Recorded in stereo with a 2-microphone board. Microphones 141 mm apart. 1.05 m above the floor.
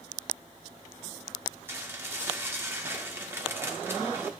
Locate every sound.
1.7 s dishes clattering: 15° right (ahead or behind), 1.6 m